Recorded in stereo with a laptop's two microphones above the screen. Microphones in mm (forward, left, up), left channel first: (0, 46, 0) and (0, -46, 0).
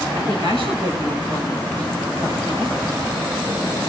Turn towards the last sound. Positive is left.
turn(degrees=-65)  # may be behind; listen again after turning